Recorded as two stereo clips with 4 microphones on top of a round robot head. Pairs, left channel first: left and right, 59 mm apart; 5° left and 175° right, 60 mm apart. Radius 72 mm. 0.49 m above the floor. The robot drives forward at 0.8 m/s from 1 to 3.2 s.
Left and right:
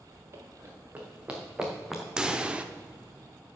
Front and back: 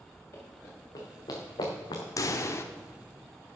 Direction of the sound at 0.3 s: 45° right.